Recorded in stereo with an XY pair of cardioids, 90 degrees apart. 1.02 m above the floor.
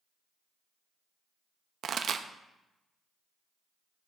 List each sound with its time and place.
1.8 s a pop: 65° right, 0.6 m